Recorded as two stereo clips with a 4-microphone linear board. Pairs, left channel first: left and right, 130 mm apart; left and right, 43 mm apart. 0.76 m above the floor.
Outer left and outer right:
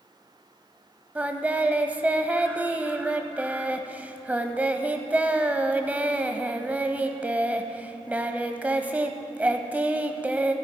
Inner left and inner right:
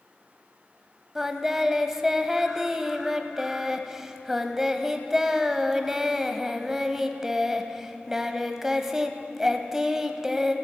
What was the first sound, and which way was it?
Singing, 10° right (ahead or behind).